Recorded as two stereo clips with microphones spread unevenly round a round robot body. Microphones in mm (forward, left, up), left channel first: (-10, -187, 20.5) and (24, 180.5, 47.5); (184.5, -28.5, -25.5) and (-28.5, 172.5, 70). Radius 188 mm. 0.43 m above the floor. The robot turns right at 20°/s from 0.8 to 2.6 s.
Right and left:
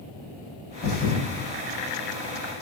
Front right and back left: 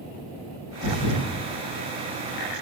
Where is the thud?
55° right, 6 m; by 1.3 s 50° right, 6 m.